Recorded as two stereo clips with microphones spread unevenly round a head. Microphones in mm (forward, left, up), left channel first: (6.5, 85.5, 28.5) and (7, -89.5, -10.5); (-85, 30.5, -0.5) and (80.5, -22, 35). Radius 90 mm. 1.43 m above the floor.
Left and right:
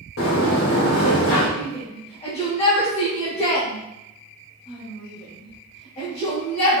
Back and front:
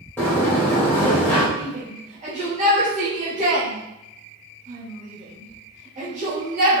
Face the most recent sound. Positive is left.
turn(degrees=35)